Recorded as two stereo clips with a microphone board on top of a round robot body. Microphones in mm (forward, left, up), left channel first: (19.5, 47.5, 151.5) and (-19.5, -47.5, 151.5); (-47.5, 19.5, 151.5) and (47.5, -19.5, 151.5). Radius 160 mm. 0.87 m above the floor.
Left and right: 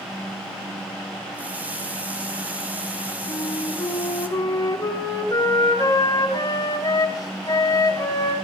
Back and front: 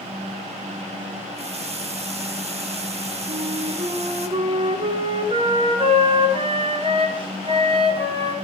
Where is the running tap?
35° right, 2.5 m.